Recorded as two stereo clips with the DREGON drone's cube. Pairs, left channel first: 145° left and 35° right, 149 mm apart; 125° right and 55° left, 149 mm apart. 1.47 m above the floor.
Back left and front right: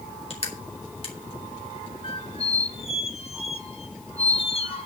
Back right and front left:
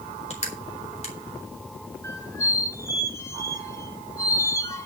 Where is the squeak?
175° left, 1.4 m.